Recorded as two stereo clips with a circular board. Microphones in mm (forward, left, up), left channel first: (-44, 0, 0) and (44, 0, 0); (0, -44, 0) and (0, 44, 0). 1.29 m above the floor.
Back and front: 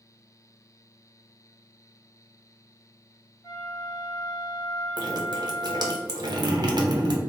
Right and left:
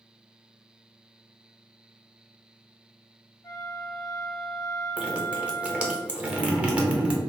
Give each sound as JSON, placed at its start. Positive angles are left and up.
{"t": 3.4, "sound": "a flute", "azimuth_deg": -130, "distance_m": 1.6}
{"t": 5.0, "sound": "dripping", "azimuth_deg": 15, "distance_m": 0.8}